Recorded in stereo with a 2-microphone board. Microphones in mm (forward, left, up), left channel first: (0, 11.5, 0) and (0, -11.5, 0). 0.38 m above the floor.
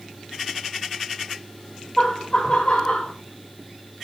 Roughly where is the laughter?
Centre.